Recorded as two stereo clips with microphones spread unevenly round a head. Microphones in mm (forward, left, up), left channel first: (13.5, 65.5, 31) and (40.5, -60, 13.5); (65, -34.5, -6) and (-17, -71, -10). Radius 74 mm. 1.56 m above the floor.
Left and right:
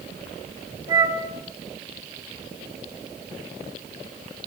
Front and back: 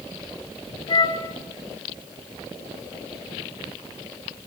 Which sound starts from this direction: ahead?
A flute, at 0.9 s.